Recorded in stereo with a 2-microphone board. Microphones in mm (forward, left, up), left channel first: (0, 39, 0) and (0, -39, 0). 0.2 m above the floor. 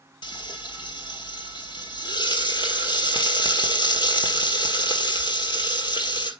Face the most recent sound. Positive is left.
turn(degrees=75)  # may be behind; listen again after turning